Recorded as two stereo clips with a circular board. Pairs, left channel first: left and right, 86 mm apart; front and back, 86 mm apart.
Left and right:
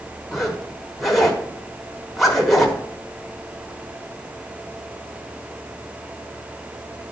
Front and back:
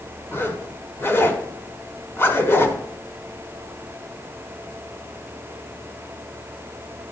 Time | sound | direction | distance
0.3 | a zipper | straight ahead | 1.3 m